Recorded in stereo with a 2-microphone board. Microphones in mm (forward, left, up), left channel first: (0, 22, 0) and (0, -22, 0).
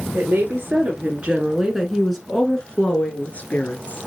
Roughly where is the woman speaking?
Right.